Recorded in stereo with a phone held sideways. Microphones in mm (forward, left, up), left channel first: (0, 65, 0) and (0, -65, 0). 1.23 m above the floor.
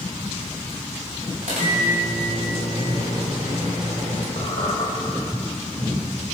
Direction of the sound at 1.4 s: 75° right (ahead or behind).